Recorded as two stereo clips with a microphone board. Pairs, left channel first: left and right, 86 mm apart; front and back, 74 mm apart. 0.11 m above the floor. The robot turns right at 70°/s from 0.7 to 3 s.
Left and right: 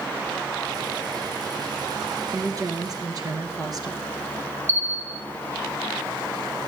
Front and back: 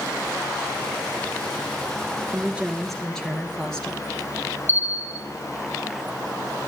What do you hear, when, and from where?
2.3 s a woman speaking: 125° right, 2 m; by 4.0 s 80° right, 2 m
4.7 s a bell: 135° right, 1.7 m